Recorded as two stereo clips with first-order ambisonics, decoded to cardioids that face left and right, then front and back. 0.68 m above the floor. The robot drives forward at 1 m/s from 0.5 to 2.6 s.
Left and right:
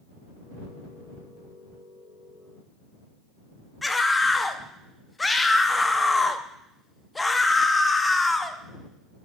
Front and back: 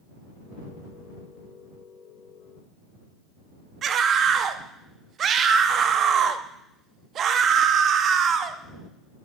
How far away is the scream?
About 0.5 m.